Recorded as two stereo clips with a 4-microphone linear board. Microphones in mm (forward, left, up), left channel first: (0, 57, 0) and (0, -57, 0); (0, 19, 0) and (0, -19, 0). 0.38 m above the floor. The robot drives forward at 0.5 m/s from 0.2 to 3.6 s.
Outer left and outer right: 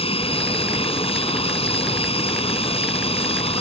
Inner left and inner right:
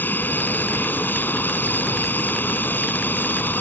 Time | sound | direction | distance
0.0 | an aircraft | 60° left (ahead or behind) | ?